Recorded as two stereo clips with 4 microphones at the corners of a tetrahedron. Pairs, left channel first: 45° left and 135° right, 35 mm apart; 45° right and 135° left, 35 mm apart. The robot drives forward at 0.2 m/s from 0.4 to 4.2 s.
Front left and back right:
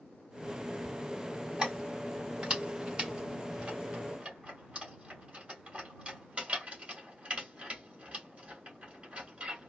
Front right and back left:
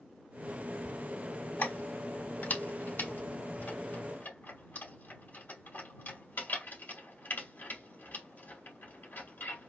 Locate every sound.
1.6 s keys jangling: 60° right, 3 m; by 9.7 s 70° right, 2.5 m